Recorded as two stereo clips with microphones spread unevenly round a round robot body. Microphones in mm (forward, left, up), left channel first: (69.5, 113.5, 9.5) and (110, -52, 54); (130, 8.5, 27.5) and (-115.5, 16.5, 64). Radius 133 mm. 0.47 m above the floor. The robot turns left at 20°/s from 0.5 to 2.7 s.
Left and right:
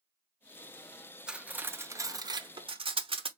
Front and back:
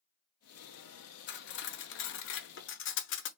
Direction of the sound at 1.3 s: 20° left.